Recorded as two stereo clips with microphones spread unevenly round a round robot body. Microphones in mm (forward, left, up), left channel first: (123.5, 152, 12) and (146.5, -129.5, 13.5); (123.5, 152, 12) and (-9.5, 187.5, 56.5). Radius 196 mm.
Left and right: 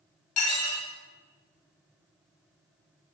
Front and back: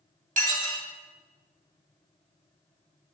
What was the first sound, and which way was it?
Dishes clattering, 130° left.